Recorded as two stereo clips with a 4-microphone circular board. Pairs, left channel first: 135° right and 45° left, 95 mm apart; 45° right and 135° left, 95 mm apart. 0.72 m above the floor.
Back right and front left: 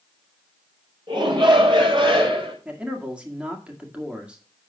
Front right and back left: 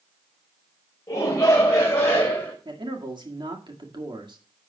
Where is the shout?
10° left, 4 m; by 2.5 s 20° left, 4 m.